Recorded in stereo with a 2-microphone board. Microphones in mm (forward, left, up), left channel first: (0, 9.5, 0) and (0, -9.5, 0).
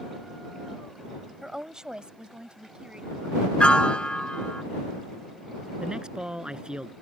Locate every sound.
1.4 s a woman speaking: 20° right (ahead or behind); by 3.5 s 70° right (ahead or behind)
3.6 s a piano: 75° left (ahead or behind)
5.8 s a man speaking: 45° right (ahead or behind)